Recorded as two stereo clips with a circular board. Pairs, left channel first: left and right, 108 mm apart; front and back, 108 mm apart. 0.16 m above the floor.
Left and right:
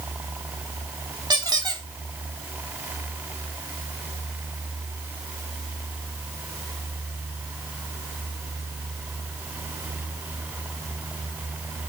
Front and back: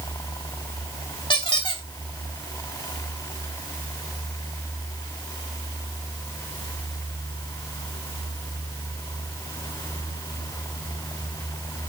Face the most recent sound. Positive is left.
turn(degrees=-40)